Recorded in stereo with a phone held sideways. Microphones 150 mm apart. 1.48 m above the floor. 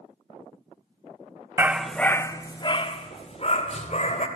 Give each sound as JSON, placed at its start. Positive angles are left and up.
{"t": 1.6, "sound": "a dog barking", "side_deg": -15, "distance_m": 0.9}